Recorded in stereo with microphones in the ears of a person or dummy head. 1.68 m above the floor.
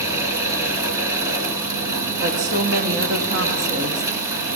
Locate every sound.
0.0 s a fan: 15° right (ahead or behind), 1.7 m
2.2 s a woman speaking: 50° right (ahead or behind), 0.9 m